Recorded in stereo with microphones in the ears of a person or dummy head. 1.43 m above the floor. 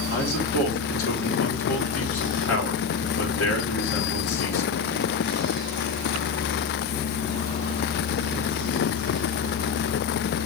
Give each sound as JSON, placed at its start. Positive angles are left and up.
{"t": 0.1, "sound": "a man speaking", "side_deg": 80, "distance_m": 4.5}